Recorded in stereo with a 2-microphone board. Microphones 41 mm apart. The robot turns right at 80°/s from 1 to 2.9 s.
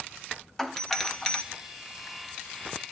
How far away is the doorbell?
About 1.1 m.